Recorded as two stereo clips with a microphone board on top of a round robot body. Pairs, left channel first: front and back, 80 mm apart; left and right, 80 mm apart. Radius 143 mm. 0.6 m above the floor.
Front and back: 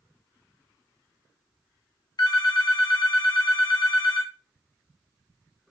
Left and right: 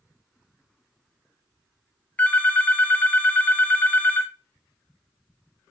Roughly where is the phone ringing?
Ahead.